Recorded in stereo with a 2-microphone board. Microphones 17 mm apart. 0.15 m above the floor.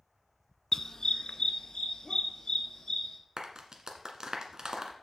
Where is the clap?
45° right (ahead or behind), 1.4 m.